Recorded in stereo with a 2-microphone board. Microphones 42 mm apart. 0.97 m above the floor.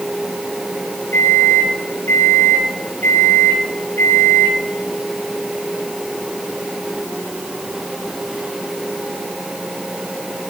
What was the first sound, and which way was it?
A microwave, 75° left (ahead or behind).